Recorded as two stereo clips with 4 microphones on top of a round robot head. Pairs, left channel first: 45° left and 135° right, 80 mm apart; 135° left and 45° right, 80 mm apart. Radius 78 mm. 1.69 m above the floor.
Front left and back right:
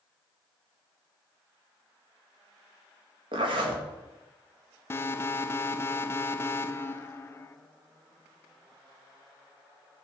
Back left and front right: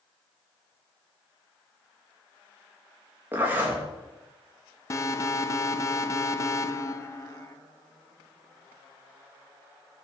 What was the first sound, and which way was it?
A zipper, 115° right.